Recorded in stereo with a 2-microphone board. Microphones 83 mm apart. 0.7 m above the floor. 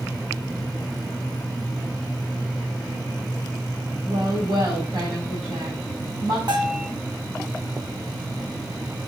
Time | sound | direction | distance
4.0 | a woman speaking | 60° right (ahead or behind) | 3.5 m
6.5 | a bell | 60° right (ahead or behind) | 4 m